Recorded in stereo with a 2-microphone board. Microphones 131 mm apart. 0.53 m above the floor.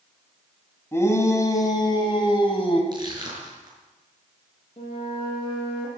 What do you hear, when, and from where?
0.9 s a shout: 20° left (ahead or behind), 3 m; by 2.8 s 45° left (ahead or behind), 2.5 m
2.9 s crushing: 35° right (ahead or behind), 5.5 m
4.8 s a flute: 45° left (ahead or behind), 7.5 m